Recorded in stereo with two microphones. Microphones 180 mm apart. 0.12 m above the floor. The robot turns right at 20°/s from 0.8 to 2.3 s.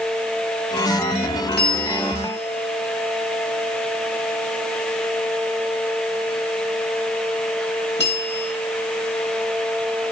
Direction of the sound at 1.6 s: 60° left (ahead or behind).